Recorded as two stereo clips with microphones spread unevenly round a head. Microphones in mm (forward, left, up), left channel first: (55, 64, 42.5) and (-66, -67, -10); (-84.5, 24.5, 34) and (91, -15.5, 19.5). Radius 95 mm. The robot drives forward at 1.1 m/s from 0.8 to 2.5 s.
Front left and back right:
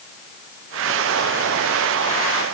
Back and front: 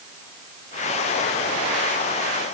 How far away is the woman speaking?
No woman speaking in this recording.